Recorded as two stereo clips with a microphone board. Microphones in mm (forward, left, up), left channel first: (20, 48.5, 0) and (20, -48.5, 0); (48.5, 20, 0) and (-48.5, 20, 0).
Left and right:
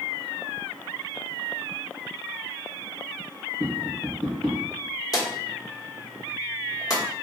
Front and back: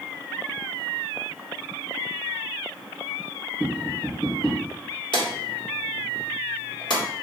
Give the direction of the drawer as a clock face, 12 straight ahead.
11 o'clock.